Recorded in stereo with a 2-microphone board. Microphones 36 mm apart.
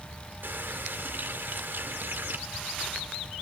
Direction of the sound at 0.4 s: 65° right (ahead or behind).